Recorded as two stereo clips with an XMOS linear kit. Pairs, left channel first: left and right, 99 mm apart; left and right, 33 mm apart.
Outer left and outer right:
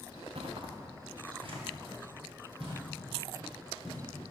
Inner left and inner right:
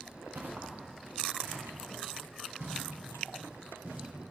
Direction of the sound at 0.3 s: 70° right (ahead or behind).